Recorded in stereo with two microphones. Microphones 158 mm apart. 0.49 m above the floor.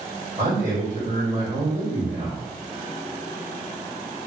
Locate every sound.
0.4 s a man speaking: 50° right (ahead or behind), 1.8 m